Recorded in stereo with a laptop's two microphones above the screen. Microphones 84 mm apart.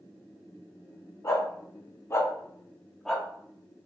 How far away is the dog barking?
About 1.3 m.